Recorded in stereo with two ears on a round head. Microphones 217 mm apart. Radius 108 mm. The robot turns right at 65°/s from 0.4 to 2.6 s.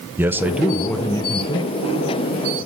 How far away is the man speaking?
About 0.7 m.